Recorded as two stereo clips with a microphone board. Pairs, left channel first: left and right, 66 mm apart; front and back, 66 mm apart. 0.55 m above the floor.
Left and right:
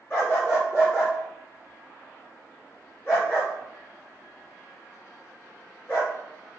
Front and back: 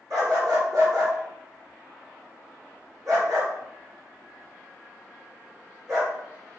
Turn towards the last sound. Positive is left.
turn(degrees=145)